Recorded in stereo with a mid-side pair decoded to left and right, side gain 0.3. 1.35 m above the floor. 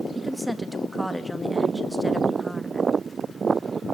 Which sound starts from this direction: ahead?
A woman speaking, at 0.1 s.